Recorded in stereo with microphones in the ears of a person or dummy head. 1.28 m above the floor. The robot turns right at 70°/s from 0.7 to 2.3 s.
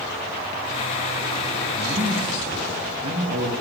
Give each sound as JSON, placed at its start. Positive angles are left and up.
{"t": 1.7, "sound": "a man speaking", "azimuth_deg": -155, "distance_m": 6.0}